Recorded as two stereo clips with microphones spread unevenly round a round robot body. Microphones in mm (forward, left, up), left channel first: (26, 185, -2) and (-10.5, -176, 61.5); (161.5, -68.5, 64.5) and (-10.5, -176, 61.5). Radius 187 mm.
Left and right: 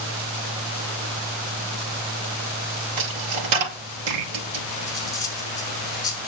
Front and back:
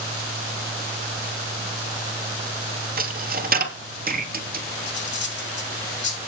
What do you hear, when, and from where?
3.0 s a dropped coin: 105° right, 3 m
4.9 s cutlery clinking: 5° left, 5.5 m